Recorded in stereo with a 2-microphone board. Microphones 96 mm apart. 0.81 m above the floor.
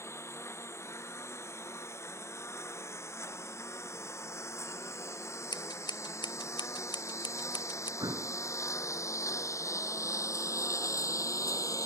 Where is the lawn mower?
30° left (ahead or behind); by 11.9 s 35° left (ahead or behind).